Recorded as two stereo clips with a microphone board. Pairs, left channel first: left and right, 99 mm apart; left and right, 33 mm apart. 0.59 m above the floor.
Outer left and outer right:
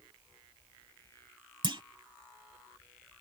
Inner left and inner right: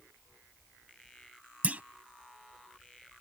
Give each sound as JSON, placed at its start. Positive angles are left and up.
{"t": 1.6, "sound": "a clunk", "side_deg": -55}